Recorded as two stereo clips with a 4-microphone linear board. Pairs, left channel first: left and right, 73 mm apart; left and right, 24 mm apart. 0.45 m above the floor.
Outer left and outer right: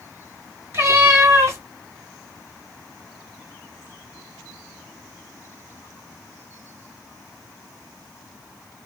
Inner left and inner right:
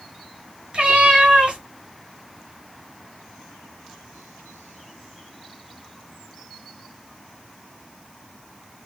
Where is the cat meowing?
40° right (ahead or behind), 2.0 m.